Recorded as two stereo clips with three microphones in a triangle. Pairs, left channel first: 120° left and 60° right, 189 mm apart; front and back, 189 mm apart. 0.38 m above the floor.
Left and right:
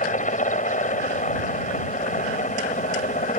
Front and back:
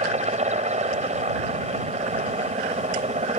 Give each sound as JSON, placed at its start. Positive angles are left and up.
{"t": 0.0, "sound": "a helicopter", "azimuth_deg": 145}